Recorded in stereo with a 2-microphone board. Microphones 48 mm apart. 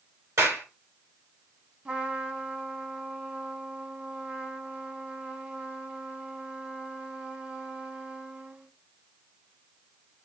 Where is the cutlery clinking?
No cutlery clinking in this recording.